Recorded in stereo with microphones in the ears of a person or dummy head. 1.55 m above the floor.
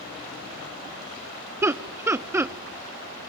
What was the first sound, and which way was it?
Laughter, 10° right (ahead or behind).